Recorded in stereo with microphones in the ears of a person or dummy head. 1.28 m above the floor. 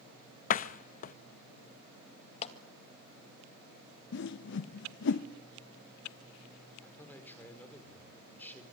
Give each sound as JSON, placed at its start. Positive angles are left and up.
{"t": 0.5, "sound": "a door slam", "side_deg": 40, "distance_m": 0.7}
{"t": 2.4, "sound": "a clap", "side_deg": 35, "distance_m": 1.8}
{"t": 4.1, "sound": "a whoosh", "side_deg": 60, "distance_m": 0.7}
{"t": 6.8, "sound": "a man speaking", "side_deg": 10, "distance_m": 4.0}